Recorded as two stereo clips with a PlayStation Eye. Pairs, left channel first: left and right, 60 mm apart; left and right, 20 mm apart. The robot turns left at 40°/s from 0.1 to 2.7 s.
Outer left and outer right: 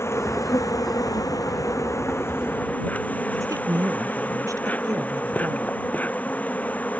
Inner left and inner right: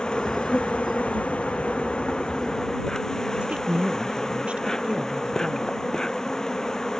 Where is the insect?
135° left; by 7.0 s 30° left.